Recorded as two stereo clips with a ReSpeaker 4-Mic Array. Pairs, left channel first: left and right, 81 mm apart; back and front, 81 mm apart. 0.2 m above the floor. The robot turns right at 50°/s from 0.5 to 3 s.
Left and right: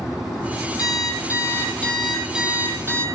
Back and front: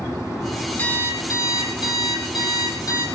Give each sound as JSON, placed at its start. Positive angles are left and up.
{"t": 0.8, "sound": "an alarm clock", "azimuth_deg": 110, "distance_m": 3.5}